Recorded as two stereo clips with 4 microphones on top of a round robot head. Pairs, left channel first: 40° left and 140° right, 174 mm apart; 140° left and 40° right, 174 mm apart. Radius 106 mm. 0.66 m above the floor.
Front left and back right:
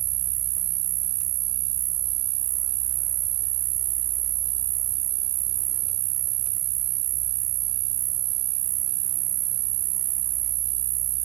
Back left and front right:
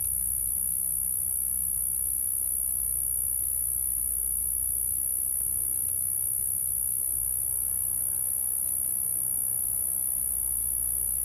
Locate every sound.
0.0 s an insect: 145° right